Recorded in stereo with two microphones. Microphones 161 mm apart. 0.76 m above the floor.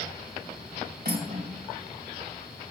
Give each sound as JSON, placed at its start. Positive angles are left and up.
{"t": 1.1, "sound": "cutlery clinking", "side_deg": -70, "distance_m": 2.5}